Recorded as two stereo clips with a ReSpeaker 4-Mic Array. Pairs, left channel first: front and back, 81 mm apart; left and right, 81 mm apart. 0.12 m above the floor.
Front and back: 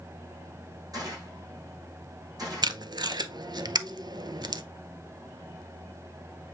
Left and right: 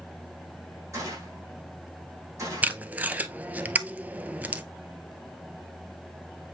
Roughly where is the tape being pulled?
Behind.